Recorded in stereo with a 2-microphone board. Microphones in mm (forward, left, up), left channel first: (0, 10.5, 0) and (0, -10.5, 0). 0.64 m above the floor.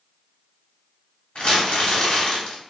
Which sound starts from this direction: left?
Crumpling, at 1.4 s.